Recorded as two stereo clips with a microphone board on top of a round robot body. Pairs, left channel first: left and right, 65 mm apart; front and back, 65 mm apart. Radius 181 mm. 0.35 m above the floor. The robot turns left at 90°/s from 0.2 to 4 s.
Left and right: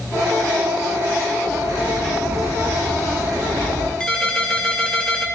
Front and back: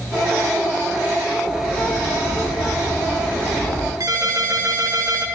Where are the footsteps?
40° right, 3.5 m; by 3.9 s 50° left, 3.5 m.